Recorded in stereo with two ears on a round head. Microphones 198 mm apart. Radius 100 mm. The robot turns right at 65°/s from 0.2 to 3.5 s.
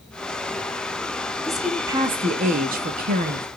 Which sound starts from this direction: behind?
A woman speaking, at 1.5 s.